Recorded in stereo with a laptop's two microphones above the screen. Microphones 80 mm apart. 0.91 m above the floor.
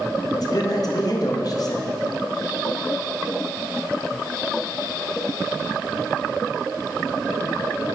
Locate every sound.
0.3 s a man speaking: 55° left (ahead or behind), 0.7 m